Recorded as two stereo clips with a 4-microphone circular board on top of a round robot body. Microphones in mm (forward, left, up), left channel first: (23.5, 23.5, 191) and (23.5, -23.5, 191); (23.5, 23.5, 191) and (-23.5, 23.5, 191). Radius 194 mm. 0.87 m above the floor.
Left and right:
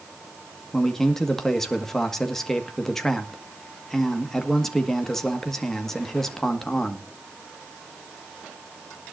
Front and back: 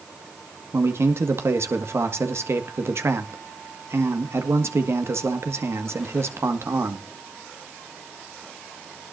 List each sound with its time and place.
0.7 s a man speaking: 175° left, 1.8 m